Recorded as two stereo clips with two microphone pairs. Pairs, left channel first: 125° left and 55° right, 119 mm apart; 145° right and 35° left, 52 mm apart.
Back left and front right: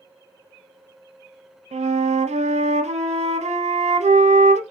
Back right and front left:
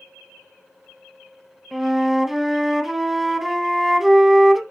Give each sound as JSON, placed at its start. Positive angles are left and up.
{"t": 1.7, "sound": "a flute", "azimuth_deg": -45, "distance_m": 0.5}